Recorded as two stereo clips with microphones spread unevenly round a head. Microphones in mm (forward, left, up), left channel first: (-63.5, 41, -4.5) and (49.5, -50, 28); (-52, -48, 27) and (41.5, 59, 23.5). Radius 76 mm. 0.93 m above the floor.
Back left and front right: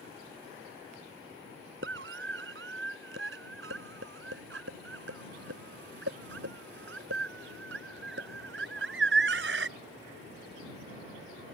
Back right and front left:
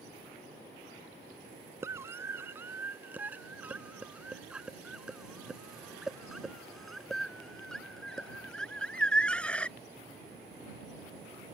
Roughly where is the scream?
Ahead right.